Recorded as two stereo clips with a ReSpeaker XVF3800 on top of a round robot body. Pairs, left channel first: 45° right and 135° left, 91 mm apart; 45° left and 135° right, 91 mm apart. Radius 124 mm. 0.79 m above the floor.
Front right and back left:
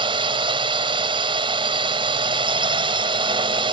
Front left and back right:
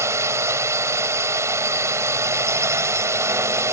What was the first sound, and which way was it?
A drone, 165° left.